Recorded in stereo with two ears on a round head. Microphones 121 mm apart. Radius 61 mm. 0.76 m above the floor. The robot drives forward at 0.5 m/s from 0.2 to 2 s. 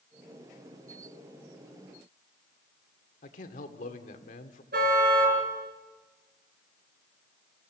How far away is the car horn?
About 5 m.